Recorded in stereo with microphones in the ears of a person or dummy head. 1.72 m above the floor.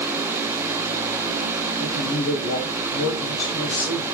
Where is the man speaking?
80° left, 0.8 m.